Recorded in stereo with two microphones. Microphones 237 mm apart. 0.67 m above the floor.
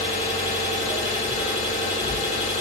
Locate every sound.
0.0 s an engine running: 30° left (ahead or behind), 1.5 m